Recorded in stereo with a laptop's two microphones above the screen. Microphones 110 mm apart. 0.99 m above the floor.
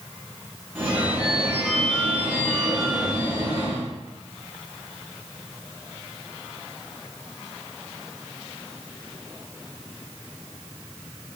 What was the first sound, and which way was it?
A phone ringing, 10° right (ahead or behind).